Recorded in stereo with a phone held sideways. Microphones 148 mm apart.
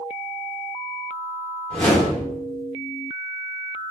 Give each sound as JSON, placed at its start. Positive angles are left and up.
{"t": 1.7, "sound": "a whoosh", "side_deg": 5, "distance_m": 3.0}